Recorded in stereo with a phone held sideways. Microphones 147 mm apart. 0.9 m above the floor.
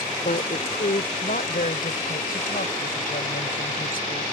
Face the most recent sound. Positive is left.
turn(degrees=80)